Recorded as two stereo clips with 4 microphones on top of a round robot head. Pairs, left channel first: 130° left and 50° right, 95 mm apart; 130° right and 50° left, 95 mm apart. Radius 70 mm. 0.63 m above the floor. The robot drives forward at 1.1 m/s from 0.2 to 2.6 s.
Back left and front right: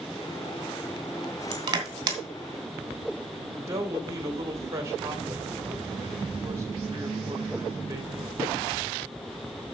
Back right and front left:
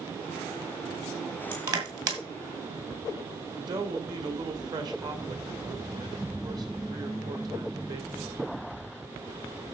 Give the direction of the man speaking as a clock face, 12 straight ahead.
12 o'clock.